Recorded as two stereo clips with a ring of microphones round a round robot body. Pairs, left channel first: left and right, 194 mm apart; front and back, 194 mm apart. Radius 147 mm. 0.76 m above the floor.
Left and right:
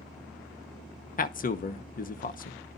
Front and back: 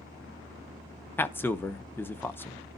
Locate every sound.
1.2 s a man speaking: 75° left, 1.0 m